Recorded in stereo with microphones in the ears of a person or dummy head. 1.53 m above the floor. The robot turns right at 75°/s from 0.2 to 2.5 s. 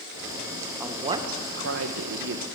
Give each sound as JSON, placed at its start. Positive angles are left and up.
{"t": 0.8, "sound": "a woman speaking", "azimuth_deg": -175, "distance_m": 1.0}